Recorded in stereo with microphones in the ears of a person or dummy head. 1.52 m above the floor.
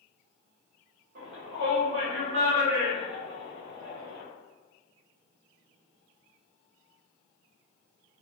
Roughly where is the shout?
Right.